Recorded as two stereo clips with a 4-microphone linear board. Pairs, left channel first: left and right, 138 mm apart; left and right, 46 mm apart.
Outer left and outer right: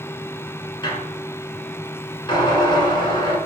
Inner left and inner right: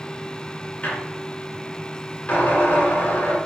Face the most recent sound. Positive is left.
turn(degrees=35)  # may be behind; listen again after turning